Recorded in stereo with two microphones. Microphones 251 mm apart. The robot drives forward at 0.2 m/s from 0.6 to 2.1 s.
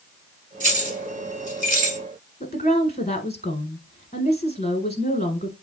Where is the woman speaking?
25° left (ahead or behind), 1.2 m.